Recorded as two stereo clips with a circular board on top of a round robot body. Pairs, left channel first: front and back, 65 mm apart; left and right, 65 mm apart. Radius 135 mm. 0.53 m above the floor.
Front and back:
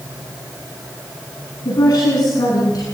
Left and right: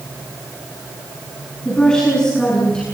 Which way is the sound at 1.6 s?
10° left.